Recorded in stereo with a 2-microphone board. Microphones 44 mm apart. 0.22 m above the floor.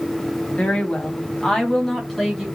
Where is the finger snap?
No finger snap in this recording.